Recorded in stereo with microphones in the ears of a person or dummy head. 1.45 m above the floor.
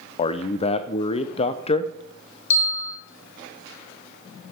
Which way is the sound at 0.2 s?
35° left (ahead or behind).